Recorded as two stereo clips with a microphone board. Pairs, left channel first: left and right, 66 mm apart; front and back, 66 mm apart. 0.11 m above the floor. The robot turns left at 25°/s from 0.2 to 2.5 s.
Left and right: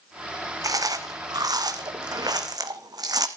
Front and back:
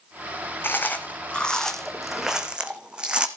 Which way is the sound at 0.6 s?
60° right.